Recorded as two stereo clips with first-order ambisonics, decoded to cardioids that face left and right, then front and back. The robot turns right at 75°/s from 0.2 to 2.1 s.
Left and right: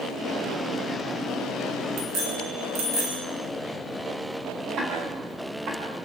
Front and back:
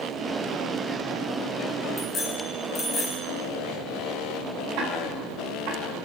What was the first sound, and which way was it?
A bicycle bell, 85° right.